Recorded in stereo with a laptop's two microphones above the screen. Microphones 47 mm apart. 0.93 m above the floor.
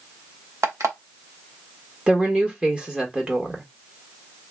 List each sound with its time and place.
0.6 s an alarm clock: 75° right (ahead or behind), 0.9 m
2.1 s a woman speaking: 20° right (ahead or behind), 1.5 m